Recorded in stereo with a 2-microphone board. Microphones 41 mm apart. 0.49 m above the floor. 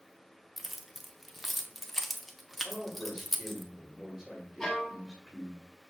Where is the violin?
5° left (ahead or behind), 1.5 m.